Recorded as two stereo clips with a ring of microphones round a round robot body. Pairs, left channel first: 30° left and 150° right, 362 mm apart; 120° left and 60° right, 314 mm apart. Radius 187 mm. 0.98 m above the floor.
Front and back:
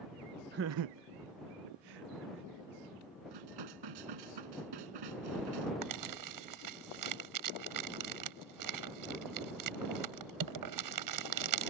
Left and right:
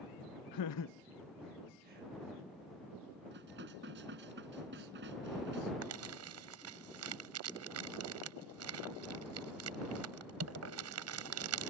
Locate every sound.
0.5 s laughter: 145° left; by 2.5 s 120° right
3.3 s dishes clattering: 125° right
5.8 s crumpling: 110° right